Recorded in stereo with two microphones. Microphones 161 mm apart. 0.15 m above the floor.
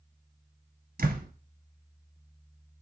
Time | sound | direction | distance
1.0 | a door slam | 65° right (ahead or behind) | 1.6 m